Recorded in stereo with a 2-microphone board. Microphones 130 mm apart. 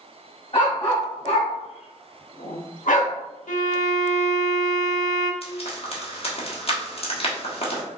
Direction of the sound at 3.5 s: 75° left (ahead or behind).